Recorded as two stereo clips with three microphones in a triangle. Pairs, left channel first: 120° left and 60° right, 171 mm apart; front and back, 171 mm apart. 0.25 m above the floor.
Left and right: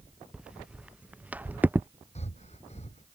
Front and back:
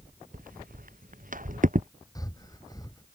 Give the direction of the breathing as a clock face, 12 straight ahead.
10 o'clock.